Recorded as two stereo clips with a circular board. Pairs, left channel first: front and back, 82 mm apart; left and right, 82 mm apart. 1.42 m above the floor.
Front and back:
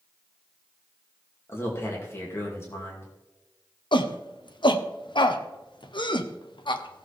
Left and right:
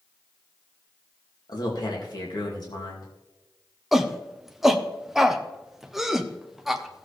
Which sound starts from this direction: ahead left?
A man speaking, at 1.5 s.